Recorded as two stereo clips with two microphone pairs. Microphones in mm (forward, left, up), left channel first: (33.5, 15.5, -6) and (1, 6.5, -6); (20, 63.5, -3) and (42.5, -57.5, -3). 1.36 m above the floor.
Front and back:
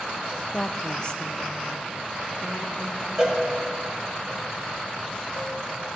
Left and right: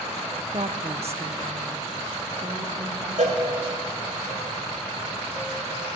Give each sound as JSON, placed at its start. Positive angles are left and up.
{"t": 0.5, "sound": "a woman speaking", "azimuth_deg": -50, "distance_m": 1.0}
{"t": 3.2, "sound": "a cowbell", "azimuth_deg": -95, "distance_m": 2.5}